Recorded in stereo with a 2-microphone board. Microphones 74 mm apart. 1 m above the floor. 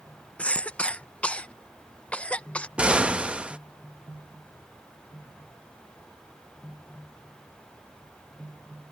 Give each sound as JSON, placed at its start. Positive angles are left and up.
{"t": 0.4, "sound": "a cough", "side_deg": 15}
{"t": 2.8, "sound": "an explosion", "side_deg": -15}